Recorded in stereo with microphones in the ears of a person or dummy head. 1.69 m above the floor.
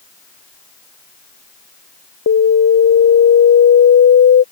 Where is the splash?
No splash in this recording.